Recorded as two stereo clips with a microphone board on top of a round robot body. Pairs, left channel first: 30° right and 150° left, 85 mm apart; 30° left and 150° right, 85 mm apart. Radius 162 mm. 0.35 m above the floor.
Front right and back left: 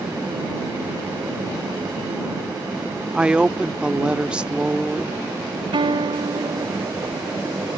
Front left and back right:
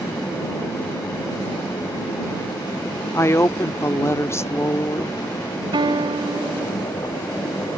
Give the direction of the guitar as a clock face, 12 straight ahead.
6 o'clock.